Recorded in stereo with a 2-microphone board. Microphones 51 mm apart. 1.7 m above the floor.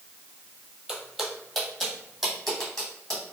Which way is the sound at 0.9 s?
5° right (ahead or behind).